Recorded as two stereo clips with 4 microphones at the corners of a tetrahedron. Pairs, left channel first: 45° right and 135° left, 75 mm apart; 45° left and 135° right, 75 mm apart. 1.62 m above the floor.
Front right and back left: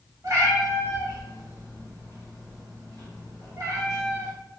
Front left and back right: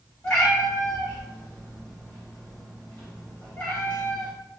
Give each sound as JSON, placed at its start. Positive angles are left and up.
{"t": 0.2, "sound": "a cat meowing", "azimuth_deg": 105, "distance_m": 1.6}